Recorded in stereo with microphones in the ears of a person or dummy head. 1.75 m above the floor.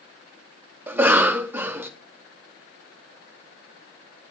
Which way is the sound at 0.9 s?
10° right (ahead or behind).